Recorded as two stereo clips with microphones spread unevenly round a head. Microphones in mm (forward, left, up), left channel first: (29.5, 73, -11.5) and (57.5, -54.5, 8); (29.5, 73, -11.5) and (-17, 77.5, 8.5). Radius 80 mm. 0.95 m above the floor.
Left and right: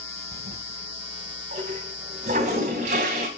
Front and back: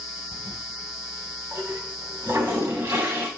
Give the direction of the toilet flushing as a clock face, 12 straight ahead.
4 o'clock.